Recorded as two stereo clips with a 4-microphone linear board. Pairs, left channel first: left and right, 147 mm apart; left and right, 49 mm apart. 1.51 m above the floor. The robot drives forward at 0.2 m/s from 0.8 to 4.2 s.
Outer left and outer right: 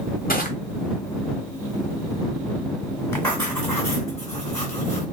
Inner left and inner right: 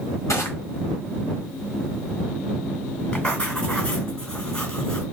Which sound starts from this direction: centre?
Writing, at 3.1 s.